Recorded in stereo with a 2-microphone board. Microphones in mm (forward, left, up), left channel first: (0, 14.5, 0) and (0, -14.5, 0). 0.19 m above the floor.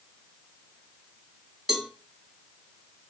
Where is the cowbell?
10° right (ahead or behind), 0.7 m.